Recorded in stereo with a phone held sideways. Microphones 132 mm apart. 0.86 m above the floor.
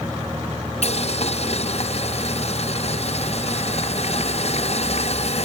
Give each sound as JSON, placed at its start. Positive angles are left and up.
{"t": 0.8, "sound": "boiling", "side_deg": 55, "distance_m": 0.5}